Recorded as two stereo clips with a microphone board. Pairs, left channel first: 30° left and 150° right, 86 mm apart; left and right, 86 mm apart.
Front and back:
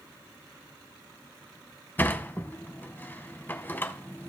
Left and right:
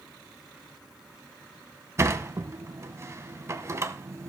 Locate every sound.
2.0 s a sliding door: 35° right, 0.5 m